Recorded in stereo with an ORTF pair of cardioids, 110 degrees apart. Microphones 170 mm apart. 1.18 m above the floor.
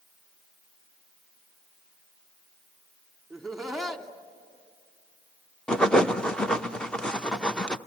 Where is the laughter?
Straight ahead, 2.5 m.